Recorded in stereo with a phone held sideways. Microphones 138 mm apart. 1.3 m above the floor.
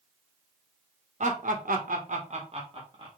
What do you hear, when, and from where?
1.2 s laughter: 60° right (ahead or behind), 1.0 m; by 3.1 s 35° right (ahead or behind), 1.8 m